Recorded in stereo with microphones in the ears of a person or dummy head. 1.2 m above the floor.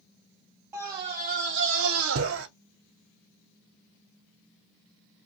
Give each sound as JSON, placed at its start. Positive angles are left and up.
{"t": 0.7, "sound": "a scream", "side_deg": -15, "distance_m": 0.6}